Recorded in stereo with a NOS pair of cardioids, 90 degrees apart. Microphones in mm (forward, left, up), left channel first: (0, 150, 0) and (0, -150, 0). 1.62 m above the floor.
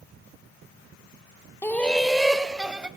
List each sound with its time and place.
1.6 s laughter: 10° left, 0.5 m; by 2.9 s 5° right, 2 m